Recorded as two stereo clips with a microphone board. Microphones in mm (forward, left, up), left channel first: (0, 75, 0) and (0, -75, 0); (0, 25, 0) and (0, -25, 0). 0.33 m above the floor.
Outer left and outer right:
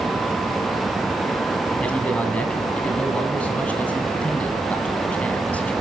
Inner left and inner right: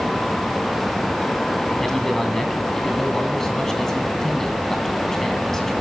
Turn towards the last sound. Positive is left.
turn(degrees=10)  # may be behind; listen again after turning